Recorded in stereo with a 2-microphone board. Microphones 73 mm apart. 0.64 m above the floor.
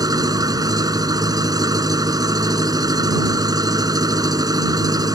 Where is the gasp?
No gasp in this recording.